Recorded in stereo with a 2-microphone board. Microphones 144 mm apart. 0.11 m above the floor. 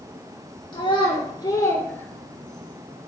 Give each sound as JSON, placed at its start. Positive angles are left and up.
{"t": 0.7, "sound": "a child speaking", "side_deg": 35, "distance_m": 1.5}